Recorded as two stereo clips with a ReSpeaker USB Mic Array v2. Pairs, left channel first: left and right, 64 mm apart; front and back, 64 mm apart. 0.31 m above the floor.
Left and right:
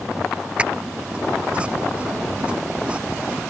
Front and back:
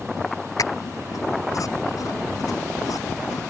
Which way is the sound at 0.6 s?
20° right.